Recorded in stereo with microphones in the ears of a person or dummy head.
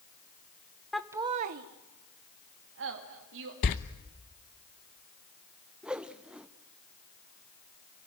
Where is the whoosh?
5° right (ahead or behind), 0.8 m.